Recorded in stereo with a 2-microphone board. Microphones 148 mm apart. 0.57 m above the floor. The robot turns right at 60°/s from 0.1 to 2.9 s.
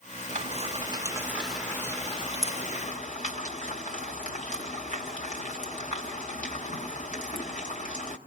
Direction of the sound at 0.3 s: 55° right (ahead or behind).